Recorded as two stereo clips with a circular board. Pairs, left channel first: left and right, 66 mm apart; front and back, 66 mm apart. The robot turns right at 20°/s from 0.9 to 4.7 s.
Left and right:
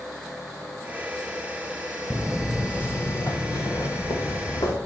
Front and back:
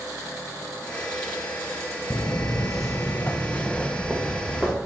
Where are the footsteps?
30° right, 0.5 m; by 4.7 s 100° left, 1.7 m.